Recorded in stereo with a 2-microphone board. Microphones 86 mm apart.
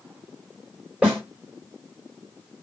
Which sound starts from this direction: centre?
A snare drum, at 1.0 s.